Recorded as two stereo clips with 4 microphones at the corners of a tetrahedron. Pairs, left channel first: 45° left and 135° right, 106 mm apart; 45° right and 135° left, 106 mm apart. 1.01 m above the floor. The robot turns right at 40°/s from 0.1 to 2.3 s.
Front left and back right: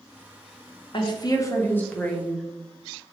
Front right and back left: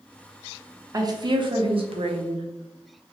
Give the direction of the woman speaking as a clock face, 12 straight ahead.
9 o'clock.